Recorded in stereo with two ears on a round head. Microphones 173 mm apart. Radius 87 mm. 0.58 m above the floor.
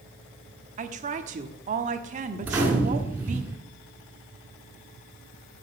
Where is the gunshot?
10° right (ahead or behind), 2 m.